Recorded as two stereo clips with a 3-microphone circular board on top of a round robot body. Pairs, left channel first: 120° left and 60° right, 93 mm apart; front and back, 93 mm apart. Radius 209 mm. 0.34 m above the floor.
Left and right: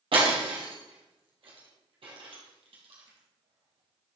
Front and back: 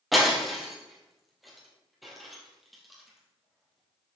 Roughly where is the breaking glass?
Right.